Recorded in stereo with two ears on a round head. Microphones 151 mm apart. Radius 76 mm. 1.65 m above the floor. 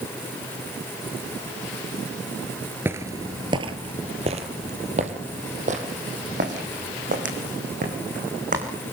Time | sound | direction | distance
2.9 | footsteps | 15° right (ahead or behind) | 1.7 m